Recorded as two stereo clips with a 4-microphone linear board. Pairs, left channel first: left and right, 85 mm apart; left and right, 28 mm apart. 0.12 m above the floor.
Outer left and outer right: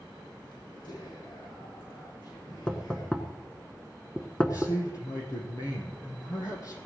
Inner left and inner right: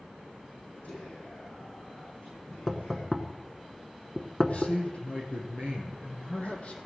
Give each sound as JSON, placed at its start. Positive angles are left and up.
{"t": 0.8, "sound": "whispering", "side_deg": 65, "distance_m": 8.5}
{"t": 2.7, "sound": "knocking", "side_deg": 10, "distance_m": 0.9}
{"t": 4.4, "sound": "a man speaking", "side_deg": 40, "distance_m": 4.0}